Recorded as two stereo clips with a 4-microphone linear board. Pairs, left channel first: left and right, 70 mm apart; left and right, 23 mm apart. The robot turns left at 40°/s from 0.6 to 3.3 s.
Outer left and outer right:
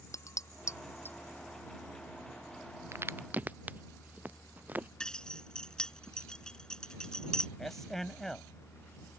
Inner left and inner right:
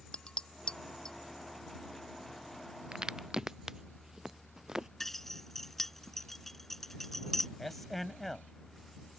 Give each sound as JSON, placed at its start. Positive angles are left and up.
{"t": 0.1, "sound": "dishes clattering", "side_deg": 50}
{"t": 2.9, "sound": "a crack", "side_deg": -40}
{"t": 5.0, "sound": "keys jangling", "side_deg": 10}
{"t": 7.6, "sound": "a man speaking", "side_deg": 5}